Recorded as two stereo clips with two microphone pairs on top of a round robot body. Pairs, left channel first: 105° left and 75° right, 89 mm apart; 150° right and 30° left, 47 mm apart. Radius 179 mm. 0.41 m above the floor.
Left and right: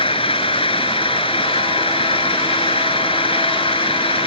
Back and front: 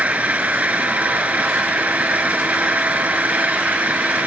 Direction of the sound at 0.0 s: 90° left.